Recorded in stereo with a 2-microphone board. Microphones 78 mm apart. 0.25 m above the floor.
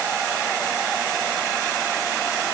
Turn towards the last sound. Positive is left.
No sound to turn to.